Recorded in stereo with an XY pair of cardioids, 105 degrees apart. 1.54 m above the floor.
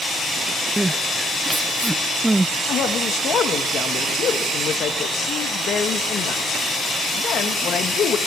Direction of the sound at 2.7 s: 65° left.